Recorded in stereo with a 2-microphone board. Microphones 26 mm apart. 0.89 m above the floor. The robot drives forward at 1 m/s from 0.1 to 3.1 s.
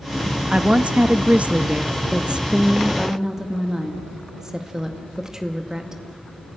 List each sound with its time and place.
0.5 s a woman speaking: 35° right (ahead or behind), 0.9 m; by 2.0 s 30° right (ahead or behind), 1.0 m
2.1 s a woman speaking: 40° right (ahead or behind), 0.5 m; by 6.0 s 20° right (ahead or behind), 1.0 m